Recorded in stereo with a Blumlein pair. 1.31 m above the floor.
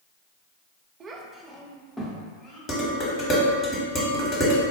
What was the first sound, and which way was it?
A child speaking, 25° right.